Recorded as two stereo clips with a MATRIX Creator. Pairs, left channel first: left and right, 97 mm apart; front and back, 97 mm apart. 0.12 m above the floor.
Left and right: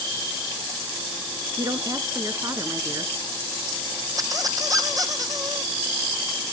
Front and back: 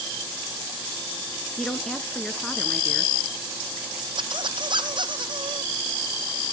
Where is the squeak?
145° right, 1.7 m.